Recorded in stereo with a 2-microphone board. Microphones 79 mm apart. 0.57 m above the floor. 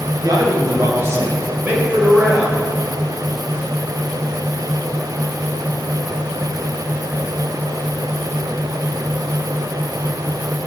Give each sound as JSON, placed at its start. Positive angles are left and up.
{"t": 0.2, "sound": "a man speaking", "side_deg": -55, "distance_m": 3.0}